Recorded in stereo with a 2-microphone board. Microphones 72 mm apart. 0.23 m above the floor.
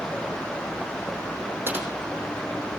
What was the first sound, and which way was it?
Typing on a keyboard, 30° right (ahead or behind).